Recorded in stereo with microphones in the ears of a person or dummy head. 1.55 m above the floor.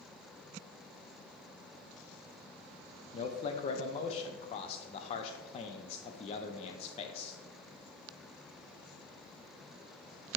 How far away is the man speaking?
About 0.5 m.